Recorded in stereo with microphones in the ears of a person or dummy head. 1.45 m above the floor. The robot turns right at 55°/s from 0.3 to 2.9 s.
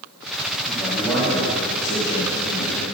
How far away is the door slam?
No door slam in this recording.